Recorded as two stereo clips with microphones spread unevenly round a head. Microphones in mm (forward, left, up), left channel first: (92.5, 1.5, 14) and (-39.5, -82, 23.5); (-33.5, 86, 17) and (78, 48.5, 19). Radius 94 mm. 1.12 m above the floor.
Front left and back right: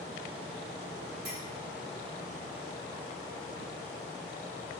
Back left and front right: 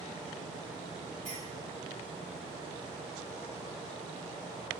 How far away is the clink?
About 3 m.